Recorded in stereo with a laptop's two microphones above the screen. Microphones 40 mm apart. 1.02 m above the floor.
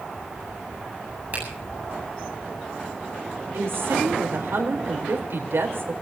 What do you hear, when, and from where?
1.3 s a finger snap: 40° right (ahead or behind), 8 m
3.5 s a woman speaking: 75° right (ahead or behind), 4 m